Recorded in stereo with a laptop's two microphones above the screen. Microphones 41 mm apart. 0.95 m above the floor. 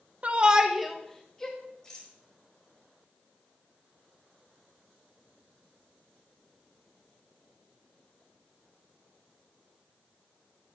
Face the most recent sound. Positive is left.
turn(degrees=15)  # may be behind; listen again after turning